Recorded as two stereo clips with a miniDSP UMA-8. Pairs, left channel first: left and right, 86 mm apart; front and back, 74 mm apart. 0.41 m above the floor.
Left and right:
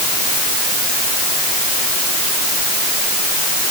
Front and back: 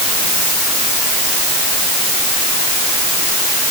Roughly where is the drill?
No drill in this recording.